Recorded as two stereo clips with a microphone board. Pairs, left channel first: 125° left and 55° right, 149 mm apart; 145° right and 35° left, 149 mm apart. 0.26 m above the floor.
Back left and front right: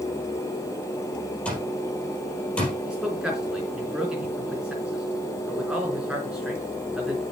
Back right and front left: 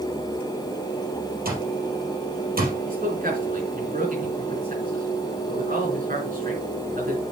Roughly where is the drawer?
No drawer in this recording.